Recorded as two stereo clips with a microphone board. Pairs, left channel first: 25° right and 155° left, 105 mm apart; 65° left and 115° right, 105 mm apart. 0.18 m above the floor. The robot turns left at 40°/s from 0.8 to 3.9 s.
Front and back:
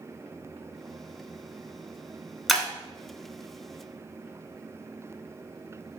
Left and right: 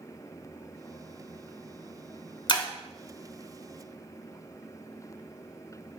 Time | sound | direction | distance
2.5 | breaking glass | 65° left | 0.8 m